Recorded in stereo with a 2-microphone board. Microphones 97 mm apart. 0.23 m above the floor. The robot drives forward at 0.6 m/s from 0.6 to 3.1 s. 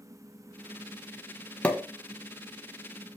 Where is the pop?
15° left (ahead or behind), 1.4 m.